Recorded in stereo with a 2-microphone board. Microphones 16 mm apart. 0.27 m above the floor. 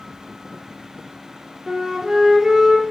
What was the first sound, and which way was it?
A flute, 40° right (ahead or behind).